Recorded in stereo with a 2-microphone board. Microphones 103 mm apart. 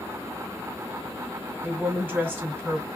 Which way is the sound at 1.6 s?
20° right (ahead or behind).